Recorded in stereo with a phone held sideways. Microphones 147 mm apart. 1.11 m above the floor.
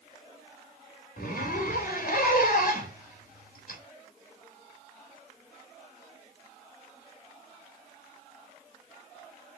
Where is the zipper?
85° left, 3.5 m.